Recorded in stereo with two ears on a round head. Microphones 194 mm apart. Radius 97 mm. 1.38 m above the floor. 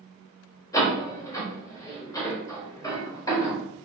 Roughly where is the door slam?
Centre.